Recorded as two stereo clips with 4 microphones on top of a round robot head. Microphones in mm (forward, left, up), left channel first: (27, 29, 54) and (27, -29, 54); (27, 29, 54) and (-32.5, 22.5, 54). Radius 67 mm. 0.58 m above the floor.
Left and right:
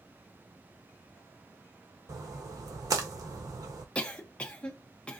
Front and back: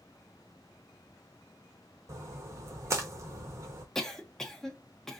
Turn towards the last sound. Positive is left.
turn(degrees=80)